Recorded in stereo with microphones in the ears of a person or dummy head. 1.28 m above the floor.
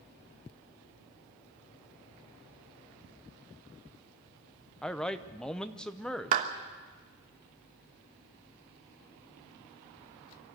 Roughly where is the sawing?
No sawing in this recording.